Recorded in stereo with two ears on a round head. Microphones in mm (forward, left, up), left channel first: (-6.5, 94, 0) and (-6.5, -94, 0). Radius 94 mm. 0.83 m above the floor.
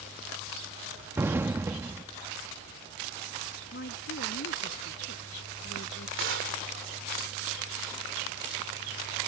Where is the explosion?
10° right (ahead or behind).